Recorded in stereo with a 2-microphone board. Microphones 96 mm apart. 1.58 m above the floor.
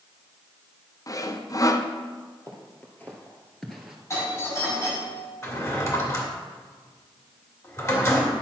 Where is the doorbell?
30° left (ahead or behind), 2.5 m.